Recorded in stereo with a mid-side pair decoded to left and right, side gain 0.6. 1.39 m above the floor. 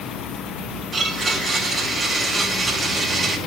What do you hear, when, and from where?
0.9 s a blender: 30° right, 2.5 m